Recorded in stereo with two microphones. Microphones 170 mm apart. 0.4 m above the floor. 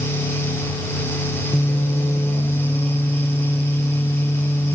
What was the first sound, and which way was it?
Only background noise.